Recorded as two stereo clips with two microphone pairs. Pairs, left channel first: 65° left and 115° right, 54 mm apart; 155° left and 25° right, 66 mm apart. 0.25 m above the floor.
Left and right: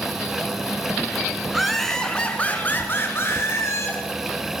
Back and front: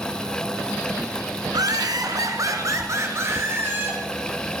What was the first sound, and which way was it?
Laughter, 30° right.